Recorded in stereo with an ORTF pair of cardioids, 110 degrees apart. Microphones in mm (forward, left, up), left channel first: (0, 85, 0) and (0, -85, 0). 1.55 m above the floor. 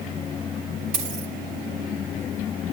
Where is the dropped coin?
70° right, 6.5 m.